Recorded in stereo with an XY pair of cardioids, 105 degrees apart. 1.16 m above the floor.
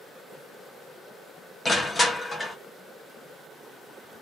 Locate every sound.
1.6 s crushing: 20° left, 0.8 m